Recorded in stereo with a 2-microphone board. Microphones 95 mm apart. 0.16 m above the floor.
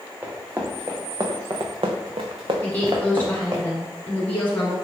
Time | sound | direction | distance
0.2 | running footsteps | 20° right (ahead or behind) | 1.1 m
2.6 | a woman speaking | 20° left (ahead or behind) | 1.4 m